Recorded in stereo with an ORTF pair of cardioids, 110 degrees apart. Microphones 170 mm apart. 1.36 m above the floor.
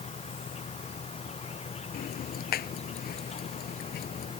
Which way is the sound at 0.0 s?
40° left.